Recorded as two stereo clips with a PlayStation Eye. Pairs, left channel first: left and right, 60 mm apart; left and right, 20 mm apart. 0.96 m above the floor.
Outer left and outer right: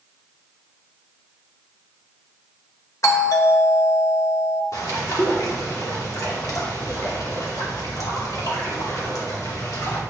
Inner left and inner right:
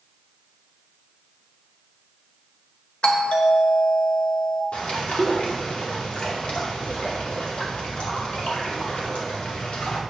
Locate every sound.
3.0 s a doorbell: 55° left (ahead or behind), 1.3 m
4.7 s a bird: 70° left (ahead or behind), 2.5 m